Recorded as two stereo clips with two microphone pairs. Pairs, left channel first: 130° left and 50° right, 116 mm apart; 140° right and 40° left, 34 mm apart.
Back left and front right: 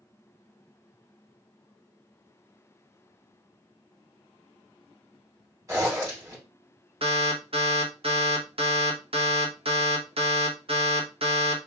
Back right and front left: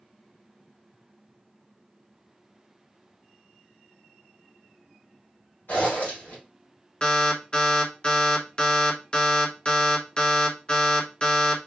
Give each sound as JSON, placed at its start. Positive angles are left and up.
{"t": 5.7, "sound": "a zipper", "azimuth_deg": -115, "distance_m": 2.0}
{"t": 7.0, "sound": "an alarm", "azimuth_deg": -80, "distance_m": 0.9}